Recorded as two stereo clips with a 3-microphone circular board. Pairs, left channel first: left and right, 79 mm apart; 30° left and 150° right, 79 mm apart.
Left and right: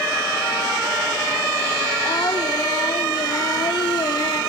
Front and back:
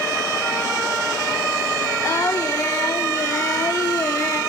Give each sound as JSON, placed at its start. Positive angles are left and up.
{"t": 2.0, "sound": "singing", "azimuth_deg": 80, "distance_m": 1.5}